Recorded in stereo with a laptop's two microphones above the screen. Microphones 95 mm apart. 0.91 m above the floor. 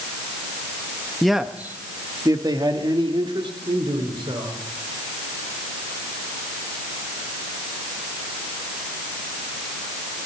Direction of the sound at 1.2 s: 5° left (ahead or behind).